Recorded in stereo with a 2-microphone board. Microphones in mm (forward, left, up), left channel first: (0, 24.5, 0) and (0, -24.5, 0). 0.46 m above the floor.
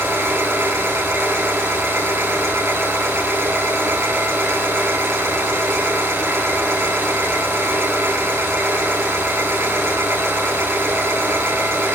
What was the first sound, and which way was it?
An engine running, 85° right.